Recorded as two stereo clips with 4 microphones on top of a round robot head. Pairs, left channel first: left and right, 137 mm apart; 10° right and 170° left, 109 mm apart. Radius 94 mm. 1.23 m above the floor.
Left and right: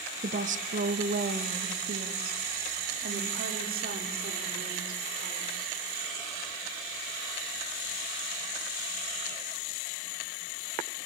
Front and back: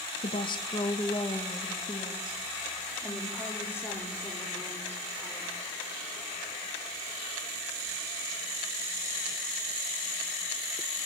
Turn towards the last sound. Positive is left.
turn(degrees=-90)